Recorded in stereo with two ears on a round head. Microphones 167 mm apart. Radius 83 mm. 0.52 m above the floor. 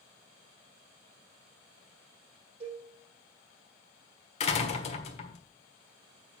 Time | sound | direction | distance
2.6 | a cowbell | 35° right (ahead or behind) | 4.5 m
4.4 | a door slam | 35° left (ahead or behind) | 1.4 m